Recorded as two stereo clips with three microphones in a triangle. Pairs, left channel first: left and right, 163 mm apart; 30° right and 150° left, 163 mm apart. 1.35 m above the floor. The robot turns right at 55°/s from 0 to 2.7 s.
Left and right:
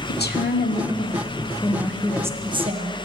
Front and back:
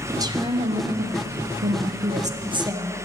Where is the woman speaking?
75° left, 0.9 m; by 3.0 s 140° right, 0.9 m.